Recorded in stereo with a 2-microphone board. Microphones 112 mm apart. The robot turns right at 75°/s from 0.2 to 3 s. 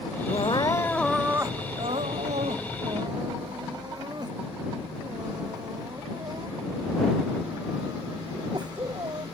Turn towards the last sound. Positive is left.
turn(degrees=-40)  # may be behind; listen again after turning